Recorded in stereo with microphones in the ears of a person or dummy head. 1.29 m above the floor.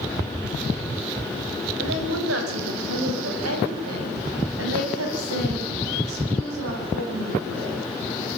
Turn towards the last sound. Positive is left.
turn(degrees=-85)